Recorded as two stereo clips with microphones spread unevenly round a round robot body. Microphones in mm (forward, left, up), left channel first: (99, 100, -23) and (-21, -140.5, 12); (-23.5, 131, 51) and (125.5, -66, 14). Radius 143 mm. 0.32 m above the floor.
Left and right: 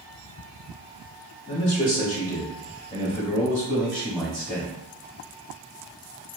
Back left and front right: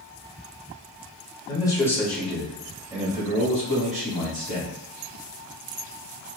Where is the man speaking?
60° left, 1.4 m; by 4.7 s 20° right, 2 m.